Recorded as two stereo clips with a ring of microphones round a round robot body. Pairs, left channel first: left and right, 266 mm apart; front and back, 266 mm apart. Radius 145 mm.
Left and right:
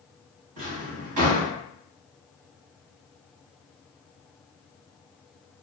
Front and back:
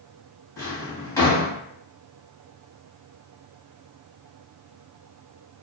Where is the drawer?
80° right, 1.3 m.